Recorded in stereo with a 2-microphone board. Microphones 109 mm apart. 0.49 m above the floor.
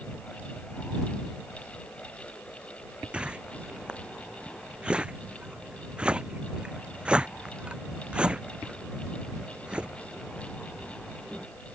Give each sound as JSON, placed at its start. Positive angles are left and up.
{"t": 3.1, "sound": "a whoosh", "side_deg": -10}